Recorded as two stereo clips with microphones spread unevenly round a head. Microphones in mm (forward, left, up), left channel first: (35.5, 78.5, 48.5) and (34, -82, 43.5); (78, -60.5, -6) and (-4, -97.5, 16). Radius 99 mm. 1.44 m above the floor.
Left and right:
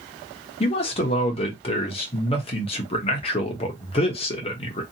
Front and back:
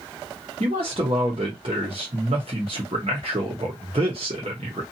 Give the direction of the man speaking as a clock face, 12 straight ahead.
7 o'clock.